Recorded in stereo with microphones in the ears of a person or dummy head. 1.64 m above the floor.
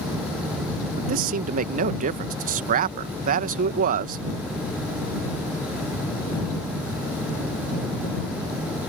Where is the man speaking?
45° right (ahead or behind).